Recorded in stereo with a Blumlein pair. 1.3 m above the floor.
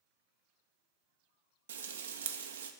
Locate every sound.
1.7 s frying: 65° right, 0.6 m